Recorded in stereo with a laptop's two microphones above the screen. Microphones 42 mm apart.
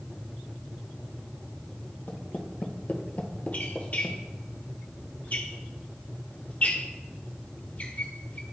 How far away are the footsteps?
About 1.5 m.